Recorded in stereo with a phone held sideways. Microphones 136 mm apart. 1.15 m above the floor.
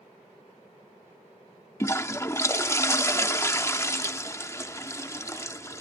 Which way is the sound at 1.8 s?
20° left (ahead or behind).